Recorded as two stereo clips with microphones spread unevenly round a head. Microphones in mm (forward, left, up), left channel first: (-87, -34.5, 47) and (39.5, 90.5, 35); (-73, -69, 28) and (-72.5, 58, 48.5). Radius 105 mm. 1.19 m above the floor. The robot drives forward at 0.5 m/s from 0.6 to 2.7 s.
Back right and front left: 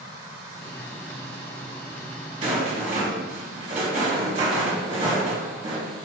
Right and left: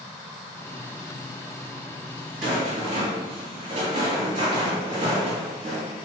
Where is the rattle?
95° left, 1.2 m; by 6.0 s 105° left, 1.2 m.